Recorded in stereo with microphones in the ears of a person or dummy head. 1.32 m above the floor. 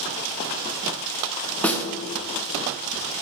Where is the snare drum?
5° left (ahead or behind), 0.8 m.